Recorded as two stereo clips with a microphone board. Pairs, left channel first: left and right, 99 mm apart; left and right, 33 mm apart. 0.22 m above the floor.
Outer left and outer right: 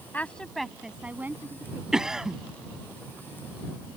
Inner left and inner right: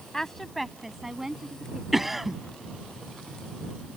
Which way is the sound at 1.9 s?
5° right (ahead or behind).